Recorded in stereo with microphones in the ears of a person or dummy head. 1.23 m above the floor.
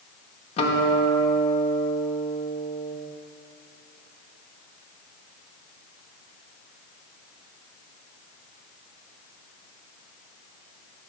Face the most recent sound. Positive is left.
turn(degrees=35)  # may be behind; listen again after turning